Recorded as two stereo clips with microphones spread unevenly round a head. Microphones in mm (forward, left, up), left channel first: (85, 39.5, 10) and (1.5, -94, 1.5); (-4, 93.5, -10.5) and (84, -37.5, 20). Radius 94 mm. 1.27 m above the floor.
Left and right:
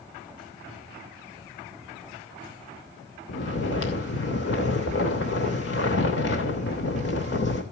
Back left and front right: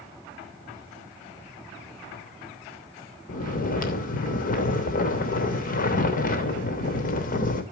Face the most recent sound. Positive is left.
turn(degrees=90)